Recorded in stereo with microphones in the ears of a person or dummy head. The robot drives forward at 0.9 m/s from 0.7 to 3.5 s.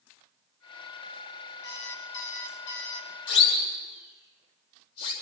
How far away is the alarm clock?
About 4 m.